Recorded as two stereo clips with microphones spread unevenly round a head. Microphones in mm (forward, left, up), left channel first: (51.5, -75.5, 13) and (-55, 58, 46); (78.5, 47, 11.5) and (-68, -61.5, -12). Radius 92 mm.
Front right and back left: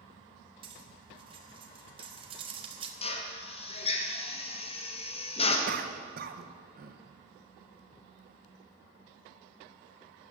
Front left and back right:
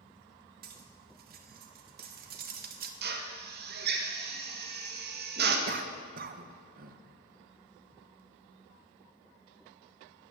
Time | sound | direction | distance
0.6 | cutlery clinking | straight behind | 1.1 m
3.0 | a drill | 110° right | 1.4 m
5.7 | a cough | 170° left | 1.0 m